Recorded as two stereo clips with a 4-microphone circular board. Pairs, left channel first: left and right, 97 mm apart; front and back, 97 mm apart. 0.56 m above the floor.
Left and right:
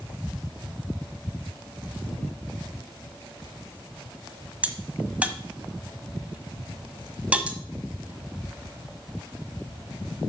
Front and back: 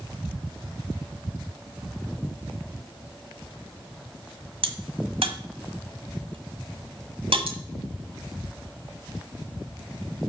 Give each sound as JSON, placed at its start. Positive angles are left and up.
{"t": 4.6, "sound": "a crack", "azimuth_deg": -165, "distance_m": 1.4}